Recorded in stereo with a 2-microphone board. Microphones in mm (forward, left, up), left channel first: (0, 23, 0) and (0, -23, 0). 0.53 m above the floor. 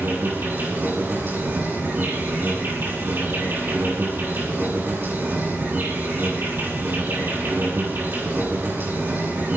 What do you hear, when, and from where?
0.0 s an insect: 55° right (ahead or behind), 8.5 m